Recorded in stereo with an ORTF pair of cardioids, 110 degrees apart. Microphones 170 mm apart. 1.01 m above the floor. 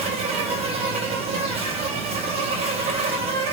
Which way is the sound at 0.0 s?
35° right.